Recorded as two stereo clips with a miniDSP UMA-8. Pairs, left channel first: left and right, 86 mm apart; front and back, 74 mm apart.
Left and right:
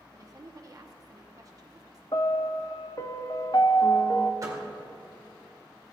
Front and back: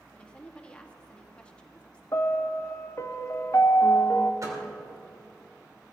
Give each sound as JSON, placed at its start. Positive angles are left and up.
{"t": 0.1, "sound": "a woman speaking", "azimuth_deg": -70, "distance_m": 1.2}
{"t": 2.1, "sound": "a piano", "azimuth_deg": 50, "distance_m": 0.6}
{"t": 4.4, "sound": "a door slam", "azimuth_deg": -135, "distance_m": 1.8}